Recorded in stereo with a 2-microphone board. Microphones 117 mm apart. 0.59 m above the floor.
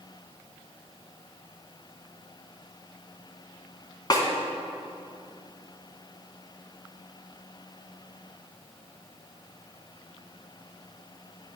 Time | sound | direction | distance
4.1 | a snare drum | 35° left (ahead or behind) | 1.3 m